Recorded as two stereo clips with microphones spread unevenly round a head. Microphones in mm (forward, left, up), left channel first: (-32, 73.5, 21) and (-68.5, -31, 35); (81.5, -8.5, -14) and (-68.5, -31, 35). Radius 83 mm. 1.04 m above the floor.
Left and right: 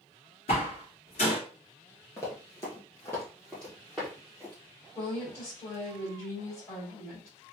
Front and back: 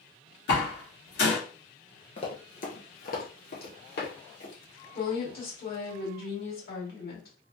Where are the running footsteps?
55° left, 1.0 m; by 4.5 s 20° right, 2 m.